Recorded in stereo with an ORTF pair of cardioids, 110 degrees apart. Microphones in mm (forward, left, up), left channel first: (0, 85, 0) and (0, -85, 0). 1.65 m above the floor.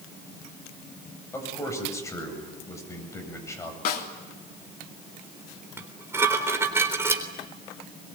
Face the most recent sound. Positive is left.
turn(degrees=-15)